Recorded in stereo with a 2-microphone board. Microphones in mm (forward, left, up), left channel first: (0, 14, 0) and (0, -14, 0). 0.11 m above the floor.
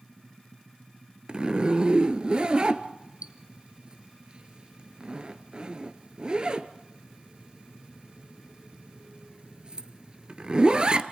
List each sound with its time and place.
1.3 s a zipper: 35° right (ahead or behind), 0.9 m